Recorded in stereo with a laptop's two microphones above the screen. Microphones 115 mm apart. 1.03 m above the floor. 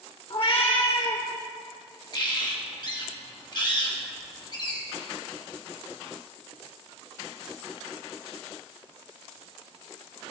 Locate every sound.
0.3 s a cat meowing: 50° left (ahead or behind), 1.4 m
2.1 s a bird: 40° left (ahead or behind), 1.3 m